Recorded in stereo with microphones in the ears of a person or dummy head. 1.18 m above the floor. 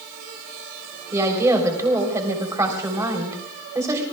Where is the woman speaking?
15° right (ahead or behind), 3.5 m.